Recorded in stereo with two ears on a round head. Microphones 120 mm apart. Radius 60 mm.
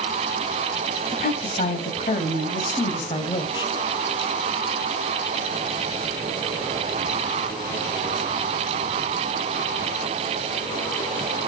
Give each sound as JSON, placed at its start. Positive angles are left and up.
{"t": 1.1, "sound": "a woman speaking", "side_deg": 55, "distance_m": 3.5}